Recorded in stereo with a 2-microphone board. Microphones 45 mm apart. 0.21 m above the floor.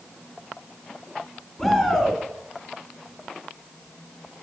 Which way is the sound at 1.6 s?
10° left (ahead or behind).